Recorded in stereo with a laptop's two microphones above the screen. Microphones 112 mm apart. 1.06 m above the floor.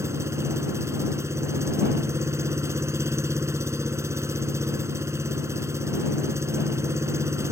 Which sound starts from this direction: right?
An engine running, at 0.0 s.